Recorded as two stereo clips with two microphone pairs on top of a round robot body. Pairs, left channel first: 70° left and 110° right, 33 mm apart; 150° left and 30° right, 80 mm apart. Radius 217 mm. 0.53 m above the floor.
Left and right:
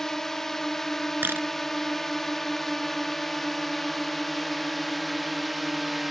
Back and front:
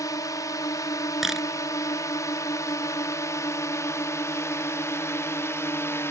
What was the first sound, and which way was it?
A drone, 140° left.